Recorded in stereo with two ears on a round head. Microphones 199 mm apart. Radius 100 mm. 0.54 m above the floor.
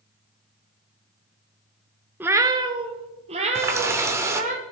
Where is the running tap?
15° right (ahead or behind), 0.9 m.